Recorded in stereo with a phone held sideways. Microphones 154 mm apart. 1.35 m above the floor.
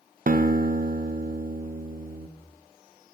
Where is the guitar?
60° right (ahead or behind), 0.5 m.